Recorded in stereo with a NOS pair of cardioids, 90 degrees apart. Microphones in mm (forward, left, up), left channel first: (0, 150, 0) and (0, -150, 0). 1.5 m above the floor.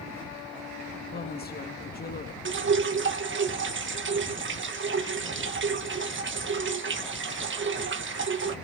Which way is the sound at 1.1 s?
30° left.